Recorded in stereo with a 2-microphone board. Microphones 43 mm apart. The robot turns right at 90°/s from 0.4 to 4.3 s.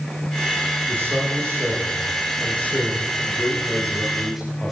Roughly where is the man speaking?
Behind right.